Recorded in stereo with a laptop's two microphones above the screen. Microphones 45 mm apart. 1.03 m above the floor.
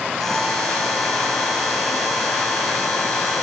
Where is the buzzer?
10° left (ahead or behind), 5.5 m.